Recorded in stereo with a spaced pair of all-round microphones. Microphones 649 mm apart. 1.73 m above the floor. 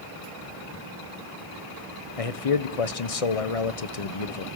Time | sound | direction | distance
2.2 | a man speaking | 60° left (ahead or behind) | 1.1 m